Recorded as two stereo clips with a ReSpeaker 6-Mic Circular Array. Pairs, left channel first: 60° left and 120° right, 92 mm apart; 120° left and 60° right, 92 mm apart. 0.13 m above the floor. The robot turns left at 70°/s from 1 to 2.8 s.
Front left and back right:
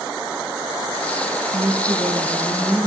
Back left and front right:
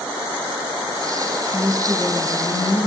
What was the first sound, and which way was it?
A woman speaking, 125° right.